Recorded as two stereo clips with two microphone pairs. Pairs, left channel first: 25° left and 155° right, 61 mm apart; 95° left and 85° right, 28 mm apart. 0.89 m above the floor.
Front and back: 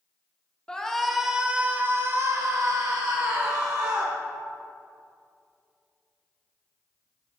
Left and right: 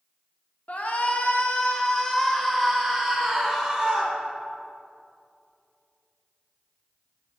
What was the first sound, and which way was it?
A shout, 105° left.